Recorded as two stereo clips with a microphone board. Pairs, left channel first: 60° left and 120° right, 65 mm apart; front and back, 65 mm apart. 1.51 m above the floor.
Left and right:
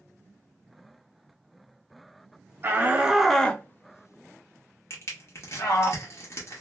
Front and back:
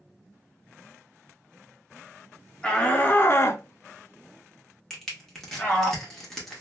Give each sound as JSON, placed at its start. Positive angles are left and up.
{"t": 2.6, "sound": "a shout", "azimuth_deg": -70, "distance_m": 0.7}
{"t": 4.9, "sound": "crushing", "azimuth_deg": 85, "distance_m": 1.3}